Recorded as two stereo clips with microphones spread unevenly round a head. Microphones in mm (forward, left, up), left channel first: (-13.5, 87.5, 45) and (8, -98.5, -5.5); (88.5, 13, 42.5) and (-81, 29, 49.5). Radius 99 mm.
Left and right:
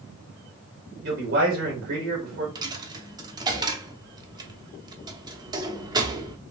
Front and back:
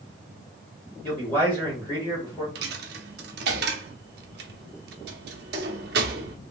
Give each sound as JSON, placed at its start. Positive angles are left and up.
{"t": 1.0, "sound": "a man speaking", "azimuth_deg": -85, "distance_m": 3.0}
{"t": 2.5, "sound": "a dropped coin", "azimuth_deg": -160, "distance_m": 0.6}